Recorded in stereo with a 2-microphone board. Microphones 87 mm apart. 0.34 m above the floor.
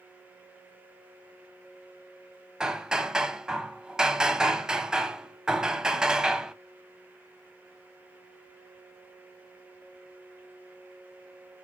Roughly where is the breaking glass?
I don't hear breaking glass.